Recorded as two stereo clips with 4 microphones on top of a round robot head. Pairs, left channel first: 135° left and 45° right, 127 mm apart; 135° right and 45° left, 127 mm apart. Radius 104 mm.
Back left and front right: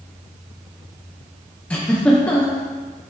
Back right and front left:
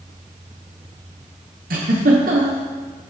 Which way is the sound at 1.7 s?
55° left.